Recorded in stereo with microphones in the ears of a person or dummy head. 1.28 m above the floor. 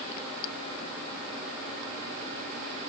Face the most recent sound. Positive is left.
No sound to turn to.